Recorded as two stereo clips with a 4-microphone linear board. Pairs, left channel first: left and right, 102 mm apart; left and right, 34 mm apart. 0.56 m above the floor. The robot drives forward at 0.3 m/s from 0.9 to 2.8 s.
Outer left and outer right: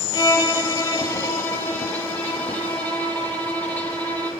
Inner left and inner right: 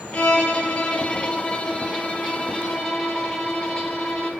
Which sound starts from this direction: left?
A violin, at 0.1 s.